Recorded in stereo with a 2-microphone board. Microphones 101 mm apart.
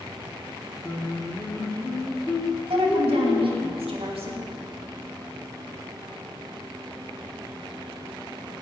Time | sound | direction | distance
0.8 | singing | 25° left (ahead or behind) | 1.3 m
2.7 | a woman speaking | 75° right (ahead or behind) | 2.5 m